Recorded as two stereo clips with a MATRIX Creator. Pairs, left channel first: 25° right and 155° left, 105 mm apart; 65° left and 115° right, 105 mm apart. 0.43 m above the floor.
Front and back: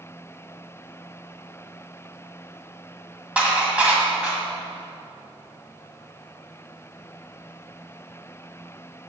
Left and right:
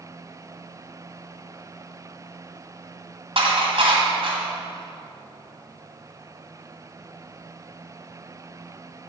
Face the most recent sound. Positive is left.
turn(degrees=-125)